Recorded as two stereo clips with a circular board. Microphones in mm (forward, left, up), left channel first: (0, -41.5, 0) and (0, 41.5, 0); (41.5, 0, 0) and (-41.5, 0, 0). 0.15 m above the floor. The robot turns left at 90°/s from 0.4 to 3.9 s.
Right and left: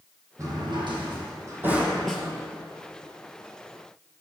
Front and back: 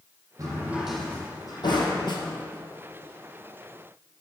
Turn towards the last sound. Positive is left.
turn(degrees=-170)